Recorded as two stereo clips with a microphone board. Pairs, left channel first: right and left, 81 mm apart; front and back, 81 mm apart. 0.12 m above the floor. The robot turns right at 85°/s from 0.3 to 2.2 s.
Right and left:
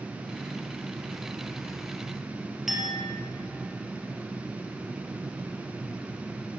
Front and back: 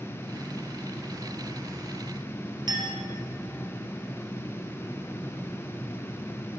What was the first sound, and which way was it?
A clink, 175° left.